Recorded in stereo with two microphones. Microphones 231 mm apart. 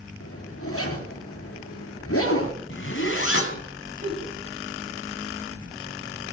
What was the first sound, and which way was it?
A zipper, 80° left.